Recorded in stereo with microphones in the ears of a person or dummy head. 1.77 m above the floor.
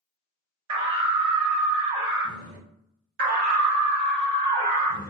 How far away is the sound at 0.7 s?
About 1.5 m.